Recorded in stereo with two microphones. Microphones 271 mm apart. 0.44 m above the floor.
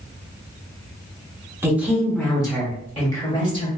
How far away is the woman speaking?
About 0.8 m.